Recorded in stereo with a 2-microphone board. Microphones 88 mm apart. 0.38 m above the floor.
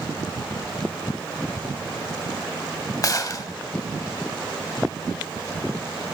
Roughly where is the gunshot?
Left.